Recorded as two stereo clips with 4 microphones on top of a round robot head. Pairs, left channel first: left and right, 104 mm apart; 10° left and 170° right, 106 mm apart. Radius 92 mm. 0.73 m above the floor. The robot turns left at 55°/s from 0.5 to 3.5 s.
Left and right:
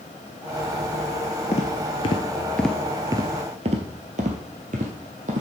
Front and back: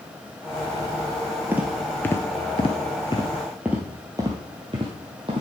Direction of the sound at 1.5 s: 120° left.